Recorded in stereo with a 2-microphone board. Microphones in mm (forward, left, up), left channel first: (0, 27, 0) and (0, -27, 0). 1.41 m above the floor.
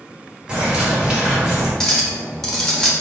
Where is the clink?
5° left (ahead or behind), 0.8 m.